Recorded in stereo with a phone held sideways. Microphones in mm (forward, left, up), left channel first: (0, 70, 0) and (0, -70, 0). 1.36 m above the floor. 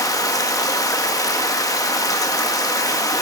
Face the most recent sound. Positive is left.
turn(degrees=25)  # may be behind; listen again after turning